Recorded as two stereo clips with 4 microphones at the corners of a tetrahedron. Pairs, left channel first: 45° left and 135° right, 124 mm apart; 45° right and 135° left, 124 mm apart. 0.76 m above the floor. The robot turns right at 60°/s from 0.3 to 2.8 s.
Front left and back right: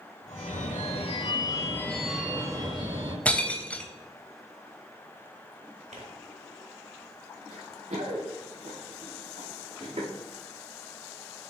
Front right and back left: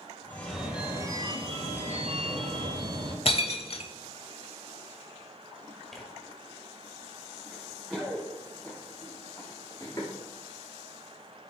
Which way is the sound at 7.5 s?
140° right.